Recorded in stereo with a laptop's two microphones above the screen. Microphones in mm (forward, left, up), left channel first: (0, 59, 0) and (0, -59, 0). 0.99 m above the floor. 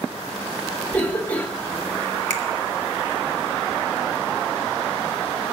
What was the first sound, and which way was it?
A cough, 10° left (ahead or behind).